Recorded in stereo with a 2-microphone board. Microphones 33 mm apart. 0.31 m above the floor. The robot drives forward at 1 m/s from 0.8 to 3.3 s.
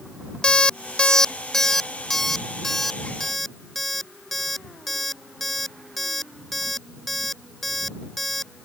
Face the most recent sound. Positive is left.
turn(degrees=5)  # may be behind; listen again after turning